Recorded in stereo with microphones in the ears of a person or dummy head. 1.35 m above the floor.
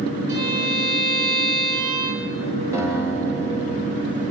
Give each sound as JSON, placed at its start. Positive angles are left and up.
{"t": 0.3, "sound": "a violin", "side_deg": -65, "distance_m": 7.0}
{"t": 2.7, "sound": "a guitar", "side_deg": -15, "distance_m": 9.5}